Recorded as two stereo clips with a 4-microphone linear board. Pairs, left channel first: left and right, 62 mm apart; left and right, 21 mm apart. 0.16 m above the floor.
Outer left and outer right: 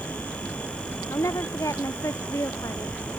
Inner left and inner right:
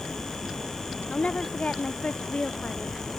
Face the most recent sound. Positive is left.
turn(degrees=60)  # may be behind; listen again after turning